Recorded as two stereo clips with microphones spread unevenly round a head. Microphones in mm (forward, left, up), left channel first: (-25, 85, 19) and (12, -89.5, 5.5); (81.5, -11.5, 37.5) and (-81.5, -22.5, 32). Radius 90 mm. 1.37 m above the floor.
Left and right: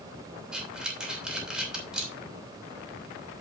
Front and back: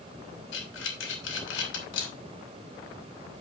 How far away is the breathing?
About 3 m.